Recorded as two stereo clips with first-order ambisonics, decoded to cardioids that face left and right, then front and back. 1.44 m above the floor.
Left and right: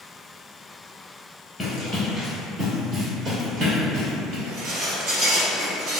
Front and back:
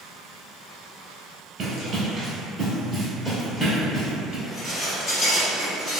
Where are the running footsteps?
175° left, 1.5 m; by 4.3 s 80° right, 1.8 m.